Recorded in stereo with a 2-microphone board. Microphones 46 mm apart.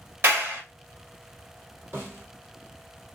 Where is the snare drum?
75° right (ahead or behind), 3 m.